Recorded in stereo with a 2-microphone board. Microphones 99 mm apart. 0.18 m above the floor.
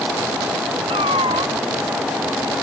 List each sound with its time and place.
0.9 s a cat meowing: 80° right